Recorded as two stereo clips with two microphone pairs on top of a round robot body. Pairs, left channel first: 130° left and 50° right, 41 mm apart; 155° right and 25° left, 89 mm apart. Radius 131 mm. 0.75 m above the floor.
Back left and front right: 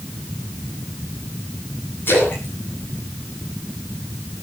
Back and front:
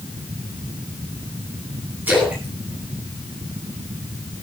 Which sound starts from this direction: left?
A splash, at 2.1 s.